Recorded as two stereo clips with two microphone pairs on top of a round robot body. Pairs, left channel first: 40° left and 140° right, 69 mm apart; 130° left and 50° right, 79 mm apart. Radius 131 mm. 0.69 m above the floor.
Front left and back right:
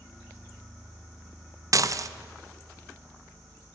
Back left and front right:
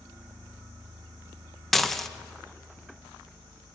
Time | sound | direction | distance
1.7 | dishes clattering | 150° right | 0.7 m